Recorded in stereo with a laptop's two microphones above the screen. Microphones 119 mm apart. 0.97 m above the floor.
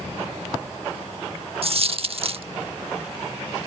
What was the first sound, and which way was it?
A dropped coin, 50° right (ahead or behind).